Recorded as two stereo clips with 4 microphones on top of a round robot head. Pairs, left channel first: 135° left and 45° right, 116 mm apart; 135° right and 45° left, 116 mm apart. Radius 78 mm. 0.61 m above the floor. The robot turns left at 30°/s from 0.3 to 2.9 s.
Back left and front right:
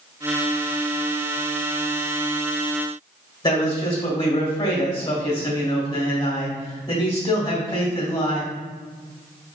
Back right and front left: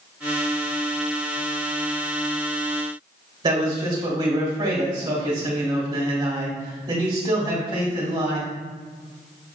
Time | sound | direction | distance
3.4 | a man speaking | 80° left | 1.6 m